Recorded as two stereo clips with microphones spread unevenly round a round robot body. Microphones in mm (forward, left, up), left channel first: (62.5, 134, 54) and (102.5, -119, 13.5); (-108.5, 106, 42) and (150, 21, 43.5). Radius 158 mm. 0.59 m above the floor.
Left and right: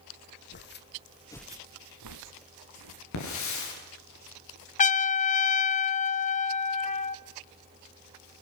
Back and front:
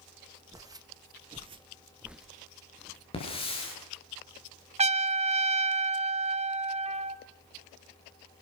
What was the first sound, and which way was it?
Footsteps, 60° left.